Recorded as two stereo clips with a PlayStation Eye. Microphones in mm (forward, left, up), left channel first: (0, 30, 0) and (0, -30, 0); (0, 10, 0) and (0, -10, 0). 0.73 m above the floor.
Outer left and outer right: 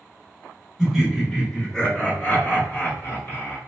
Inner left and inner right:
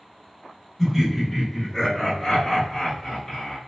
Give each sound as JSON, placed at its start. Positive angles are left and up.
{"t": 0.8, "sound": "laughter", "side_deg": -5, "distance_m": 1.4}